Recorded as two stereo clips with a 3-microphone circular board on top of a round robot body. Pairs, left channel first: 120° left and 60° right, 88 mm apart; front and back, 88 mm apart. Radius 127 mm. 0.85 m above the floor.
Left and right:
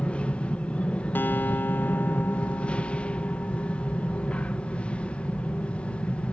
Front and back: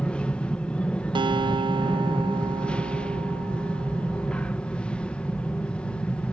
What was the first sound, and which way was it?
An aircraft, 60° left.